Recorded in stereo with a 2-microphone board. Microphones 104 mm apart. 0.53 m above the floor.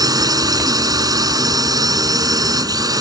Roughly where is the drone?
Right.